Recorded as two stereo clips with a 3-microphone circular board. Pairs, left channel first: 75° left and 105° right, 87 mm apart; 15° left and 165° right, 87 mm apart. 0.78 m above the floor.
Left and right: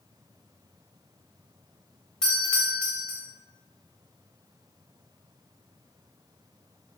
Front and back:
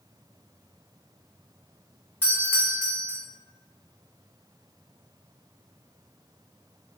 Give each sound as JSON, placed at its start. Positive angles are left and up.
{"t": 2.2, "sound": "a doorbell", "azimuth_deg": 5, "distance_m": 1.2}